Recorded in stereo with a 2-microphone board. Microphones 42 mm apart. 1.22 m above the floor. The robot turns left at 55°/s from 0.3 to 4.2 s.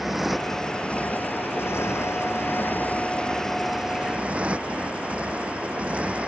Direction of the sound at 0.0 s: 175° right.